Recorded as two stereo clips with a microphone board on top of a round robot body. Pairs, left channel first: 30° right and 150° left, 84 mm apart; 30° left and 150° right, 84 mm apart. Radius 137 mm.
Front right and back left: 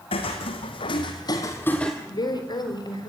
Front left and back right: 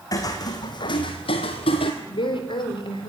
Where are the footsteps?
20° right, 2 m; by 1.9 s 55° left, 1.2 m.